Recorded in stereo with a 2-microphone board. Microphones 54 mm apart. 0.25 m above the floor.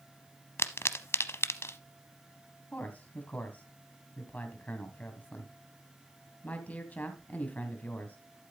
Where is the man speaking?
30° left (ahead or behind), 2 m.